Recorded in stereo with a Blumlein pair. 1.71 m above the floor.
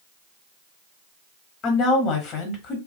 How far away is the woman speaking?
About 1.1 m.